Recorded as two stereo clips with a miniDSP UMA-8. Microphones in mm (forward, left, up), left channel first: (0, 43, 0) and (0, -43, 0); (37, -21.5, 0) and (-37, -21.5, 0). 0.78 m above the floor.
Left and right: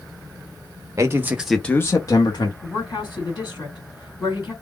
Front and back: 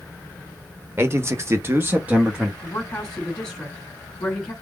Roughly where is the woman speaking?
Left.